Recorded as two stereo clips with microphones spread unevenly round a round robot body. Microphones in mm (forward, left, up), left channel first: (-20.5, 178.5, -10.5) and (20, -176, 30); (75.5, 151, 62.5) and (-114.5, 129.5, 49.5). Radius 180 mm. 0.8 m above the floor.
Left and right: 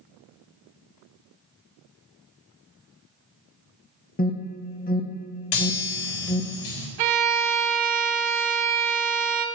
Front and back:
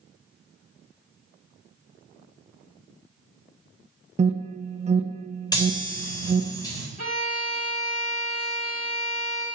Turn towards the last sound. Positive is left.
turn(degrees=-65)